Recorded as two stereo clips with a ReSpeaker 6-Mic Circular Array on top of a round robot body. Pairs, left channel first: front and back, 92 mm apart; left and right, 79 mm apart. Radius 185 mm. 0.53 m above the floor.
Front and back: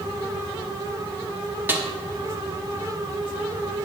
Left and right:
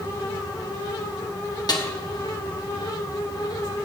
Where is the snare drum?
115° left, 1.8 m.